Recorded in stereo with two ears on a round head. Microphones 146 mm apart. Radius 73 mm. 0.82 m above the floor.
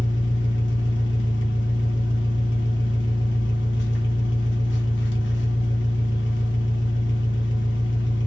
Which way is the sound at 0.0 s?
85° left.